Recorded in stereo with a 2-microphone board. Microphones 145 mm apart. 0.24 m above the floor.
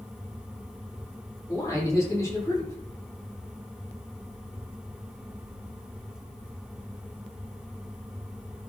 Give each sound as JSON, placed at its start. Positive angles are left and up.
{"t": 1.5, "sound": "a man speaking", "side_deg": 20, "distance_m": 9.0}